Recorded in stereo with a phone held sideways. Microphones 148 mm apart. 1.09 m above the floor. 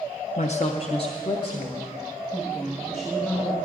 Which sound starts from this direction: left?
A woman speaking, at 0.4 s.